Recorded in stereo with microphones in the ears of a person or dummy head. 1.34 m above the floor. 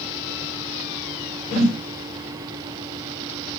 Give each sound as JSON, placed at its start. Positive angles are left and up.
{"t": 1.5, "sound": "a whoosh", "side_deg": 45, "distance_m": 4.5}